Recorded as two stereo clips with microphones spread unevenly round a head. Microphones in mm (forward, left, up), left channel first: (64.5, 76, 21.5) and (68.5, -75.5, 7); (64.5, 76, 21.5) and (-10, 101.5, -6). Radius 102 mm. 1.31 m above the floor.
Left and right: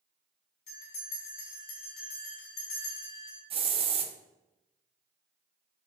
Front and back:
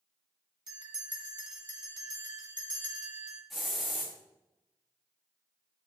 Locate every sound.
0.7 s a bell: 135° left, 2.5 m
3.5 s a hiss: 75° right, 0.8 m